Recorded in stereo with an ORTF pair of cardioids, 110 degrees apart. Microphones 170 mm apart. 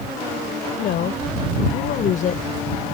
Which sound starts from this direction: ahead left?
A woman speaking, at 0.8 s.